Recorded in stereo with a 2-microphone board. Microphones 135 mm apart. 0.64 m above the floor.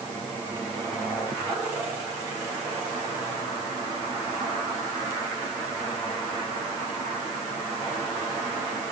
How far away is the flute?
I don't hear a flute.